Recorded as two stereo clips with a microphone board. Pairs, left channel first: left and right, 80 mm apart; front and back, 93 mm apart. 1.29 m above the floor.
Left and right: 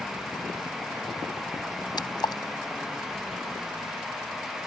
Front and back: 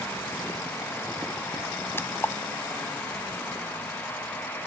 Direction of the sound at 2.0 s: 65° left.